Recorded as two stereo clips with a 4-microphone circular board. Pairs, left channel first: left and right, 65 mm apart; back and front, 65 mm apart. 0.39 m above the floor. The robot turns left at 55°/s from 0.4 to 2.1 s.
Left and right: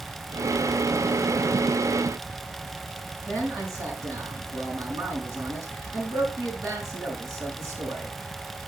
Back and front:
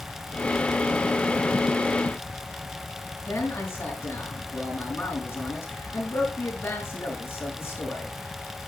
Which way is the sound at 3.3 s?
120° right.